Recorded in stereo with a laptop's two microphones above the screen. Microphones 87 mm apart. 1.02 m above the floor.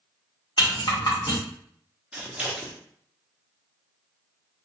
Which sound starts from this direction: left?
A rattle, at 0.6 s.